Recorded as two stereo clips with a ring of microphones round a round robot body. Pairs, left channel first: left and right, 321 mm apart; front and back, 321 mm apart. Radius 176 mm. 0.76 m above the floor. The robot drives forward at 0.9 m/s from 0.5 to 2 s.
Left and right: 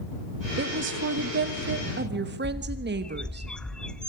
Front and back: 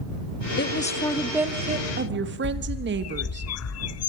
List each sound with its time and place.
0.6 s a woman speaking: 45° right, 1.3 m; by 3.4 s 135° right, 1.3 m
2.4 s a bird: 5° left, 0.5 m